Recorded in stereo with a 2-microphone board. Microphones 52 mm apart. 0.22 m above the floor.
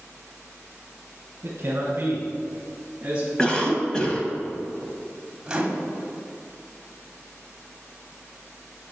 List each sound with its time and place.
1.4 s a man speaking: 50° right (ahead or behind), 1.8 m; by 3.3 s 15° right (ahead or behind), 1.4 m
3.4 s a cough: 15° left (ahead or behind), 1.1 m
5.5 s a microwave: 15° right (ahead or behind), 1.1 m